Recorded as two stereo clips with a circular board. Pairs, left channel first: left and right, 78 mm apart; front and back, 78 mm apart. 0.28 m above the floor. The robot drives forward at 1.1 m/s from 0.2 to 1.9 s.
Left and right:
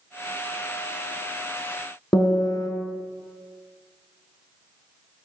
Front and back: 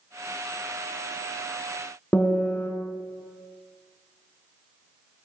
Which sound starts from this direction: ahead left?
A piano, at 2.1 s.